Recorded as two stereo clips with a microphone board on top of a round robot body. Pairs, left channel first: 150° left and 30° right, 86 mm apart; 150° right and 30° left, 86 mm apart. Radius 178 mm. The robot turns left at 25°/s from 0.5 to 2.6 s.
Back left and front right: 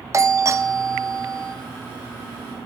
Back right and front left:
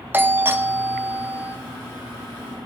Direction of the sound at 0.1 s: 15° right.